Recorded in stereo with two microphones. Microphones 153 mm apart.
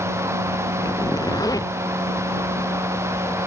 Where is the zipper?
25° left (ahead or behind).